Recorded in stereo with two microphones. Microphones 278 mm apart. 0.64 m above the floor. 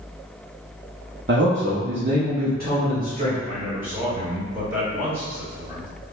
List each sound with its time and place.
1.3 s a man speaking: 40° right (ahead or behind), 0.6 m; by 3.4 s 30° right (ahead or behind), 1.8 m
3.5 s a man speaking: 10° right (ahead or behind), 1.5 m